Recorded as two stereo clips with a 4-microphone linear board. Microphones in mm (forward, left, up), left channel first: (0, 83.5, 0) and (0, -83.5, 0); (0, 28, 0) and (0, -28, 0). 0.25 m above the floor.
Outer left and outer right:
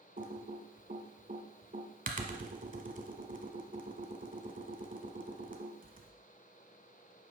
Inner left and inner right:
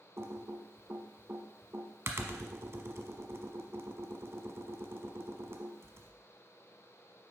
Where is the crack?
No crack in this recording.